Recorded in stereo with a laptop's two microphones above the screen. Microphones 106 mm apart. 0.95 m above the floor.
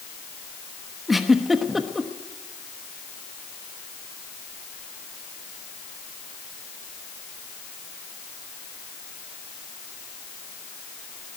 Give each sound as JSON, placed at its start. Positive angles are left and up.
{"t": 1.1, "sound": "a giggle", "side_deg": 0, "distance_m": 1.1}